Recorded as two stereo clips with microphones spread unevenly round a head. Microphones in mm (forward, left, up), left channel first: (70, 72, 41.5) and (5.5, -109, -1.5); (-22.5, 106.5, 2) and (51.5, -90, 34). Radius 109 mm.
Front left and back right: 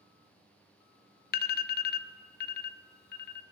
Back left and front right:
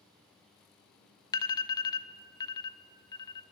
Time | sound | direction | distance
1.3 | an alarm | 70° left | 0.5 m